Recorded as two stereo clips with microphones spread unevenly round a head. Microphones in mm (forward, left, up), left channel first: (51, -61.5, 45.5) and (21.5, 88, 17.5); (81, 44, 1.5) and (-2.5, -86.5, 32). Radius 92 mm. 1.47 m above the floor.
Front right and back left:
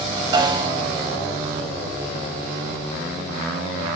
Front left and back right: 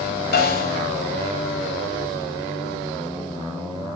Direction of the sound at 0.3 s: 40° left.